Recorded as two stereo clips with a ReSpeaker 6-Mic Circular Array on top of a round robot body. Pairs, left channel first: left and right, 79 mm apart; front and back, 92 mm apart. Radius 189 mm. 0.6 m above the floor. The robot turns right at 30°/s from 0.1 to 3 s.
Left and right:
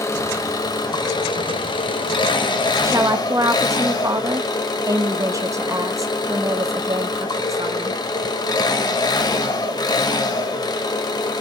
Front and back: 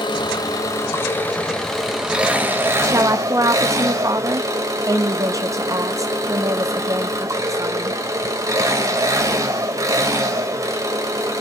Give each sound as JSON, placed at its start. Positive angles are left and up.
{"t": 0.0, "sound": "an engine running", "azimuth_deg": 40, "distance_m": 2.0}
{"t": 2.8, "sound": "a woman speaking", "azimuth_deg": -135, "distance_m": 1.5}